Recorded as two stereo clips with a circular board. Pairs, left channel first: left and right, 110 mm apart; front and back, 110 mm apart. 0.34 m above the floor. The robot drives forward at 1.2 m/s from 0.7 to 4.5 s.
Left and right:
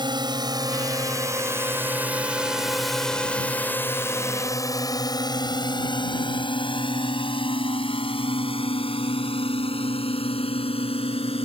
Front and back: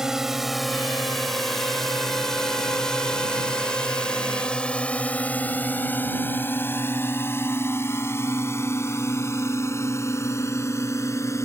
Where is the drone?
95° right; by 11.5 s 65° left.